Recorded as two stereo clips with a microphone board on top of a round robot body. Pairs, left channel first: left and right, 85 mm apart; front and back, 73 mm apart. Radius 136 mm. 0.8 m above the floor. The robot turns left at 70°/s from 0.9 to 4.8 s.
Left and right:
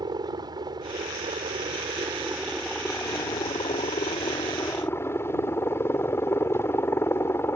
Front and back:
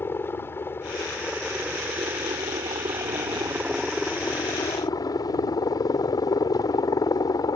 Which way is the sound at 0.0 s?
55° right.